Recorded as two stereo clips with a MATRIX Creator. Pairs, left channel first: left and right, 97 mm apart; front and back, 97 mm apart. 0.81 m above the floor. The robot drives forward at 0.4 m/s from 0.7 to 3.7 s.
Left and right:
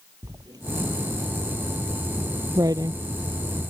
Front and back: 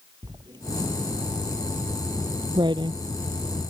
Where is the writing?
140° right.